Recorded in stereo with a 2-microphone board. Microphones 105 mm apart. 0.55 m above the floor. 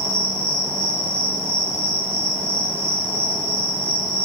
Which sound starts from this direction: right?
An insect, at 0.0 s.